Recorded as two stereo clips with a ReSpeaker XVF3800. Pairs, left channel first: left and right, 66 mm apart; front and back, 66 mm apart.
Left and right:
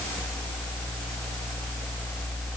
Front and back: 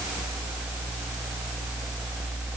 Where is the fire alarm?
I don't hear a fire alarm.